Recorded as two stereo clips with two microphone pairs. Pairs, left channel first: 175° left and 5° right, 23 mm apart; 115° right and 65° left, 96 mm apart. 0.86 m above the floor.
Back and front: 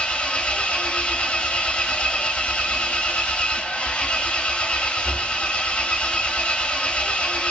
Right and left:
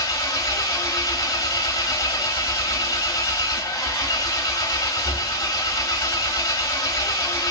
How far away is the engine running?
About 0.7 m.